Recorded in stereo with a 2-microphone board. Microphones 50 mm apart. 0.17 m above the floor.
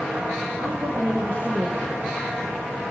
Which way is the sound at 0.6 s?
60° right (ahead or behind).